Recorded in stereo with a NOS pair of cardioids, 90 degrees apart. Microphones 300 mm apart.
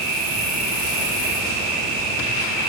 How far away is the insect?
About 1.3 m.